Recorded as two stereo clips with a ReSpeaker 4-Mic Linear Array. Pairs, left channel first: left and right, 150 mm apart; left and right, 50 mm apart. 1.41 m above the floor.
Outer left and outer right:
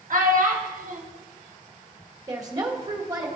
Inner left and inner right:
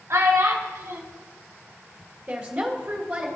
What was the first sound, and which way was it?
A child speaking, 65° right (ahead or behind).